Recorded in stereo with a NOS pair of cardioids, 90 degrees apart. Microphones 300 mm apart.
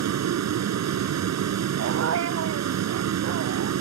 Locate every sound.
0.0 s a vehicle: 65° right
1.8 s a dog barking: 60° right